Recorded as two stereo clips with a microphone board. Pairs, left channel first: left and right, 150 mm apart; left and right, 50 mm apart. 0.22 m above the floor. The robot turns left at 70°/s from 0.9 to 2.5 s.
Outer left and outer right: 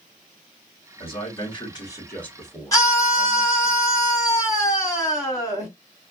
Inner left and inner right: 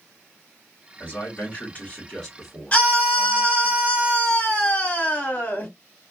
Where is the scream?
25° left (ahead or behind), 1.9 m.